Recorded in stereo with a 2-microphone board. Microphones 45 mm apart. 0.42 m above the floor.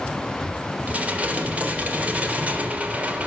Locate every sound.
0.9 s dishes clattering: 30° right (ahead or behind), 0.8 m